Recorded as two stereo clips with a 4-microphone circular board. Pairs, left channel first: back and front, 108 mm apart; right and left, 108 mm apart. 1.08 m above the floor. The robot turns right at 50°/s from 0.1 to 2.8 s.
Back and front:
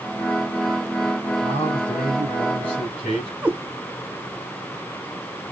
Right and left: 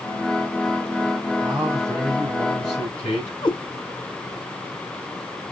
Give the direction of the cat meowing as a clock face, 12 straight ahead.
3 o'clock.